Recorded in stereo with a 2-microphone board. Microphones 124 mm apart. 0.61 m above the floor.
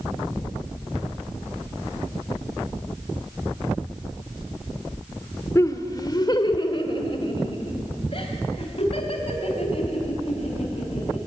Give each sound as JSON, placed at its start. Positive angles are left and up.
{"t": 5.5, "sound": "laughter", "side_deg": 25, "distance_m": 1.4}